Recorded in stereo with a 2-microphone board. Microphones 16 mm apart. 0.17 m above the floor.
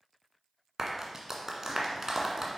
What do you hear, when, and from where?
0.8 s a clap: 35° right (ahead or behind), 1.6 m